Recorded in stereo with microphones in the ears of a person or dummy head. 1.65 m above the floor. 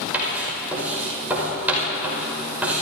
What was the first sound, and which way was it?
Writing, 10° right (ahead or behind).